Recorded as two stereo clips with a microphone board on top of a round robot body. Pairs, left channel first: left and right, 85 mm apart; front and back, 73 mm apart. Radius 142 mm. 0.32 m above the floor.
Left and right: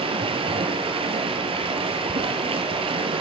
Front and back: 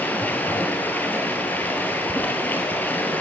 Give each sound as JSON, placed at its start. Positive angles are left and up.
{"t": 0.0, "sound": "running water", "azimuth_deg": -70, "distance_m": 1.4}